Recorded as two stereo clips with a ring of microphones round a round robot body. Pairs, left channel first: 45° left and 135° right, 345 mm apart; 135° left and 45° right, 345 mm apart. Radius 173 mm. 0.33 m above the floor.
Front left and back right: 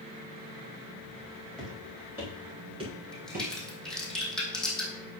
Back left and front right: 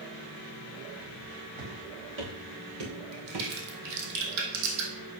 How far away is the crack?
About 2.5 m.